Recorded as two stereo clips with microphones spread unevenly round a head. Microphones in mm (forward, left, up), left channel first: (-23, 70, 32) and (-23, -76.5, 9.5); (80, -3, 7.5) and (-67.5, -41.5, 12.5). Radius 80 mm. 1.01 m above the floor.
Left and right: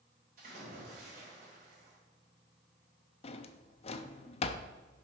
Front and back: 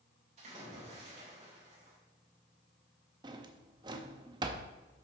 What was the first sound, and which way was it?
A splash, 120° right.